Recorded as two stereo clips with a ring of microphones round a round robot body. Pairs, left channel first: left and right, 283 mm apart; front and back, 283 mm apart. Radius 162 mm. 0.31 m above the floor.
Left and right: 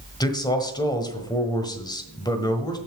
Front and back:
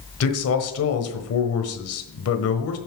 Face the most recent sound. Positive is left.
turn(degrees=15)